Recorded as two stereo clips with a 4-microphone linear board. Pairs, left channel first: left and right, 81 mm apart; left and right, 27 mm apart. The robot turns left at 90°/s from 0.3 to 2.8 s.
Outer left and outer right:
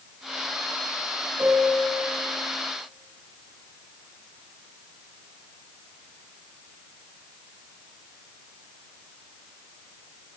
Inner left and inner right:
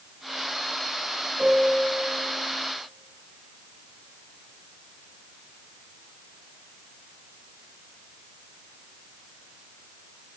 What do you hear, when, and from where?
1.4 s a piano: 75° right, 1.1 m; by 2.0 s 135° right, 1.1 m